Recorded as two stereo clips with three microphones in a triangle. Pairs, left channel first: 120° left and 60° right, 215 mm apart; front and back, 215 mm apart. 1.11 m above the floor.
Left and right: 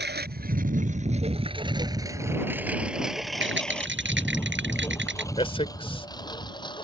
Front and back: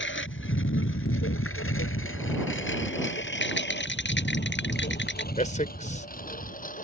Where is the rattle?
30° right.